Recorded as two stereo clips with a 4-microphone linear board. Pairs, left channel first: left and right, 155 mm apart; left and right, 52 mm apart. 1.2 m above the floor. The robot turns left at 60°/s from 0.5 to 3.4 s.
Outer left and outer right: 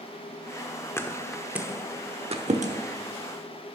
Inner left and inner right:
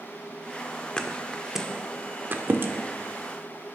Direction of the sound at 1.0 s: 20° left (ahead or behind).